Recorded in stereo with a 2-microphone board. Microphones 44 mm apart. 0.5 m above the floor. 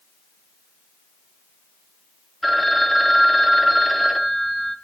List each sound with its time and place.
2.4 s a phone ringing: 5° left (ahead or behind), 2.5 m